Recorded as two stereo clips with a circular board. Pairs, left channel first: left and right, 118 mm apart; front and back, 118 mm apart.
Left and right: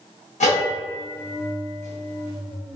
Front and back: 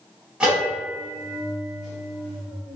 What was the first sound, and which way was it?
A bell, 95° left.